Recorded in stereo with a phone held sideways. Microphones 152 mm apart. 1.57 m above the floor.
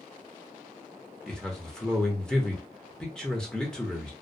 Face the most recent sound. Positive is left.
turn(degrees=5)  # may be behind; listen again after turning